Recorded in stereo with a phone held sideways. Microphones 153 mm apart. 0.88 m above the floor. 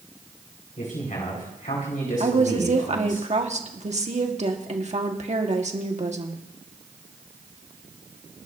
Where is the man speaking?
60° left (ahead or behind), 5 m.